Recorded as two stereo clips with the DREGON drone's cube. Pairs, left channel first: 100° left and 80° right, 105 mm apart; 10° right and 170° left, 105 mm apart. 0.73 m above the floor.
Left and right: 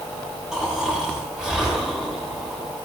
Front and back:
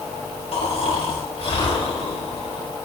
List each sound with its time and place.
0.5 s snoring: 5° left, 4.5 m